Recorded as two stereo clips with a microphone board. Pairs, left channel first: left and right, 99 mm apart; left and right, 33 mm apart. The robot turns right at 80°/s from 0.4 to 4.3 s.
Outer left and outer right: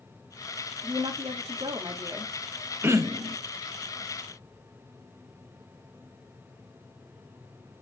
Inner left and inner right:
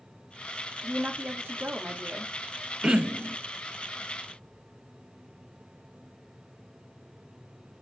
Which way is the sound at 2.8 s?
160° right.